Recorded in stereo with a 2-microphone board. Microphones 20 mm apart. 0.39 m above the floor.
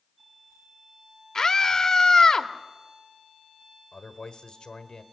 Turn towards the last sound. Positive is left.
turn(degrees=45)  # may be behind; listen again after turning